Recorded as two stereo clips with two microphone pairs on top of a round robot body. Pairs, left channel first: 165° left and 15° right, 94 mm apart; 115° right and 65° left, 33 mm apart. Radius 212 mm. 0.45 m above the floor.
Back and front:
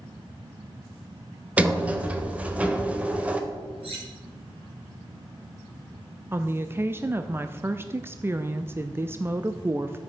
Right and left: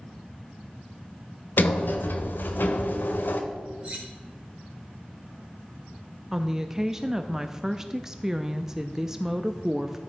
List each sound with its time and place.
1.6 s a sliding door: 90° right, 1.0 m
3.8 s cutlery clinking: straight ahead, 4 m
6.3 s a woman speaking: straight ahead, 0.9 m